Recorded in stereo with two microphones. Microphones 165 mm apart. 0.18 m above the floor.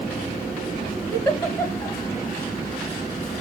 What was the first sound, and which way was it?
A giggle, 15° left (ahead or behind).